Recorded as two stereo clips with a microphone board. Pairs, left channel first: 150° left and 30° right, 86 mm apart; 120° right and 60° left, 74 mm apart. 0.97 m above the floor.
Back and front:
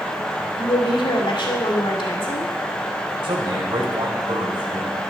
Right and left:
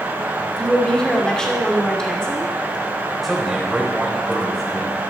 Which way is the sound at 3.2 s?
30° right.